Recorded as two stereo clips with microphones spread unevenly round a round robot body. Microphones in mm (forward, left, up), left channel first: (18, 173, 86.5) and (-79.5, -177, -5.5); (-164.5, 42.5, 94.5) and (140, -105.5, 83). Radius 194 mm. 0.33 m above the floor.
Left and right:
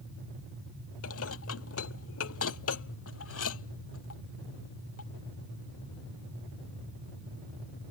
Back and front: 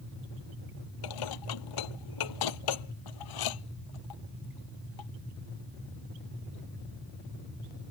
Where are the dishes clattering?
130° left.